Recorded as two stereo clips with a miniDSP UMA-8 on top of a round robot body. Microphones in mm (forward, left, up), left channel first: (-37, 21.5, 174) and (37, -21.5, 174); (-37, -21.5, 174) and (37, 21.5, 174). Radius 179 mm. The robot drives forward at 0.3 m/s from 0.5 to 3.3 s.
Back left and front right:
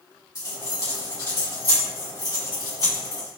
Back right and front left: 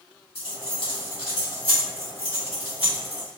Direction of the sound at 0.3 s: 160° right.